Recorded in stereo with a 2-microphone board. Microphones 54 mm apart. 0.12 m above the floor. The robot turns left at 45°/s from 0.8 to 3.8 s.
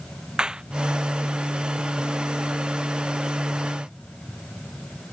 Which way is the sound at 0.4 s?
15° right (ahead or behind).